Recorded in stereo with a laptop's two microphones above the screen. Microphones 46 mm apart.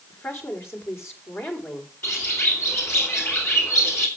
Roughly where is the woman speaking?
Left.